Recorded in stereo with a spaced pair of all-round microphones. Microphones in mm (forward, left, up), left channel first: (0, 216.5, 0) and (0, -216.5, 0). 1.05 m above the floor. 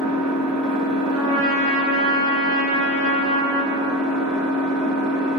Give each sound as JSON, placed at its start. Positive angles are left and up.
{"t": 0.0, "sound": "an engine running", "side_deg": -10, "distance_m": 1.6}
{"t": 1.1, "sound": "a trumpet", "side_deg": -80, "distance_m": 1.1}